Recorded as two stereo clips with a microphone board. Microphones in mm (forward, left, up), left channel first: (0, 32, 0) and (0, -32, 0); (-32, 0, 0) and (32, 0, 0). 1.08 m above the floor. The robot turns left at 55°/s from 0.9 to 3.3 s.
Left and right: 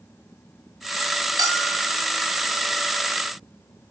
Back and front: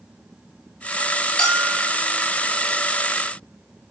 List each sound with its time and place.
1.4 s a bell: 110° right, 7 m; by 2.0 s 145° right, 7 m